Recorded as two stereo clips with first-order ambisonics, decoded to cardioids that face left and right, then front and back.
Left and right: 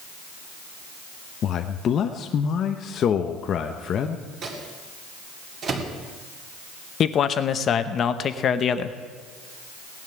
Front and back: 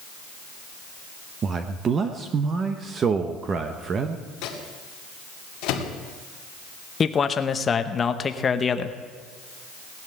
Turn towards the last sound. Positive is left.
turn(degrees=55)